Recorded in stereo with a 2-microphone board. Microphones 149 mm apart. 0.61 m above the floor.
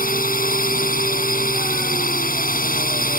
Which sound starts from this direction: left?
A drone, at 0.0 s.